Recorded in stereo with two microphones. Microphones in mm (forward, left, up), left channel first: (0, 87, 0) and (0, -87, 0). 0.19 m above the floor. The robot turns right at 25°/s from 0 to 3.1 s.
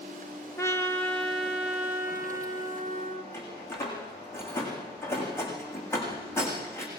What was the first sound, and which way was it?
A trumpet, 160° left.